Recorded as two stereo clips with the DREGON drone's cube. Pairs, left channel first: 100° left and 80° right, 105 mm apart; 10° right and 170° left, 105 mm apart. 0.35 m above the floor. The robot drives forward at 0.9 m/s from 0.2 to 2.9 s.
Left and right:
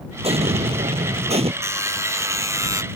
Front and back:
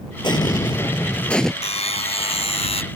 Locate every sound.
0.2 s an explosion: 55° right; by 1.5 s 100° right
1.6 s a buzzer: 15° right; by 2.8 s 20° right